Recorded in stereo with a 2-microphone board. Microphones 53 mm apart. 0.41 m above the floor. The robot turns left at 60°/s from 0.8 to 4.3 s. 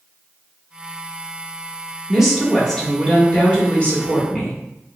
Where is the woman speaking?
5° right (ahead or behind), 1.1 m; by 4.6 s 25° left (ahead or behind), 1.1 m.